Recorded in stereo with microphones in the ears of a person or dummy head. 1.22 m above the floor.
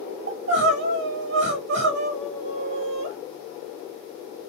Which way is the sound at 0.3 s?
65° right (ahead or behind).